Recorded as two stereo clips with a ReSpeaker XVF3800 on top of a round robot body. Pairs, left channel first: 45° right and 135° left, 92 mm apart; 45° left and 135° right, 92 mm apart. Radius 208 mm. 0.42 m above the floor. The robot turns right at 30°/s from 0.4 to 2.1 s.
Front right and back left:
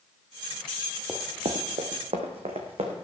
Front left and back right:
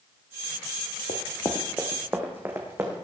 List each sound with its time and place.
1.1 s running footsteps: 50° left, 0.5 m; by 3.0 s 160° left, 2.5 m